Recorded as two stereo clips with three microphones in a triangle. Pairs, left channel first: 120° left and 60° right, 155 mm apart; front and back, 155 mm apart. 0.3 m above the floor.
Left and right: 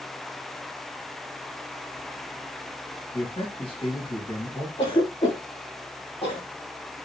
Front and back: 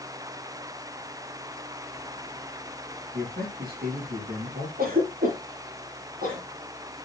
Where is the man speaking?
175° left, 4.5 m.